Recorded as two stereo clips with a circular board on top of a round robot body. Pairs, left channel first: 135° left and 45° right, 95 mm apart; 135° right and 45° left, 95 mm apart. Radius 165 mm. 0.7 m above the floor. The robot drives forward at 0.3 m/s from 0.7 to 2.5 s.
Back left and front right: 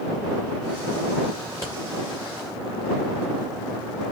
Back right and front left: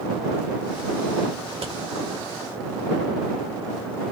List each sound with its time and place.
1.5 s scissors: 70° left, 0.9 m; by 1.7 s 75° left, 0.8 m